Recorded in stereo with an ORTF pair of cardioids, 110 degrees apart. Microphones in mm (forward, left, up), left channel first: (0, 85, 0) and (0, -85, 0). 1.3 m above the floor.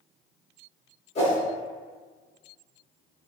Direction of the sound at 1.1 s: 40° left.